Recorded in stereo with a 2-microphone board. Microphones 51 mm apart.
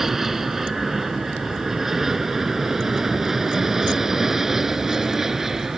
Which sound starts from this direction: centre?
An aircraft, at 0.0 s.